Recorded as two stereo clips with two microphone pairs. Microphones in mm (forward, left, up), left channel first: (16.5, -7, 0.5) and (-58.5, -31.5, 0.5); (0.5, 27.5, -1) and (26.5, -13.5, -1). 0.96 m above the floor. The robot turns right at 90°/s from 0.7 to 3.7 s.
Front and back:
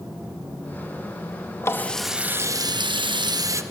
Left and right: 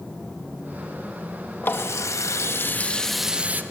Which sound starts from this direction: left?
A running tap, at 1.6 s.